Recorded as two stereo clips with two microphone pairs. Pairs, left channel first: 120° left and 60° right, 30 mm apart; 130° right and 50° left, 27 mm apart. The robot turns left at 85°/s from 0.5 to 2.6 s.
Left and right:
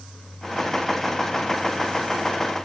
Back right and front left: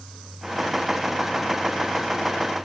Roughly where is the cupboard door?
I don't hear a cupboard door.